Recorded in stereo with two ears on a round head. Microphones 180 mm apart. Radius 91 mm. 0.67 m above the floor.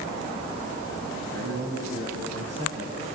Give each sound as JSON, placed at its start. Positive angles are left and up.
{"t": 1.3, "sound": "a man speaking", "side_deg": -55, "distance_m": 4.5}